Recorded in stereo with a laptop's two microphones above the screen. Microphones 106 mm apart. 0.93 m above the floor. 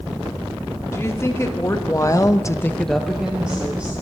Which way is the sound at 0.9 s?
25° left (ahead or behind).